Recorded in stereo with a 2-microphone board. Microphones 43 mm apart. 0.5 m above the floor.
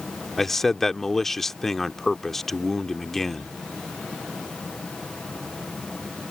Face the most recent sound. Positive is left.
turn(degrees=10)  # may be behind; listen again after turning